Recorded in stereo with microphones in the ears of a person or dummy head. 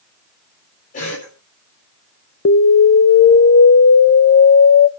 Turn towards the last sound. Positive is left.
turn(degrees=60)  # may be behind; listen again after turning